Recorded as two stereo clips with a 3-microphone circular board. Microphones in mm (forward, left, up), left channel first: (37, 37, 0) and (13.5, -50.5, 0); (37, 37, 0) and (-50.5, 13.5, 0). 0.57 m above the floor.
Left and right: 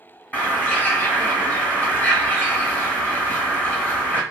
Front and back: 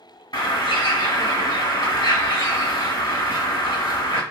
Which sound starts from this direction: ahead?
A bird, at 0.3 s.